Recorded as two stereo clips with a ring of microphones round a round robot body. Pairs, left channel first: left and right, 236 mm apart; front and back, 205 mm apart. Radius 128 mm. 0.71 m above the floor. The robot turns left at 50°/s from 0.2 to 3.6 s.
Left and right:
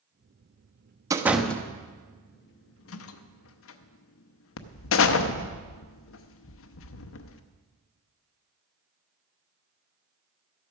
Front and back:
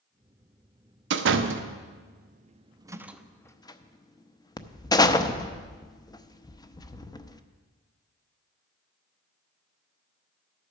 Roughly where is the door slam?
Behind.